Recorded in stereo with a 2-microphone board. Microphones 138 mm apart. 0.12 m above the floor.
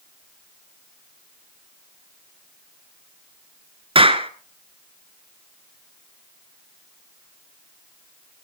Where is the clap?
40° right (ahead or behind), 1.2 m.